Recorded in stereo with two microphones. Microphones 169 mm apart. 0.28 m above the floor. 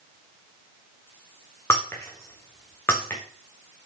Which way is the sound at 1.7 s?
15° left (ahead or behind).